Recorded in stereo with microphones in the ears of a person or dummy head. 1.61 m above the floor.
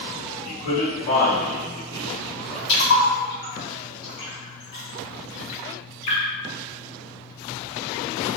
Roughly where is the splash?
Left.